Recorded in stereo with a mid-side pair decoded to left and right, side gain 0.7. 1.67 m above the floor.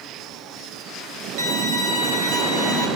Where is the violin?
60° right, 3 m.